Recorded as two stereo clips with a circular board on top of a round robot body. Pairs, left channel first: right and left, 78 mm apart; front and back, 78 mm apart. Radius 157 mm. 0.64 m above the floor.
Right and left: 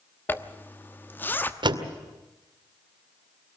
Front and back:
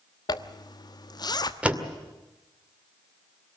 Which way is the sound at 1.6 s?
105° left.